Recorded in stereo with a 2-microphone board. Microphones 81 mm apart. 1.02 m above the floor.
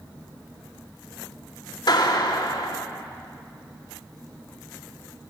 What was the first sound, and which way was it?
A clap, 60° left (ahead or behind).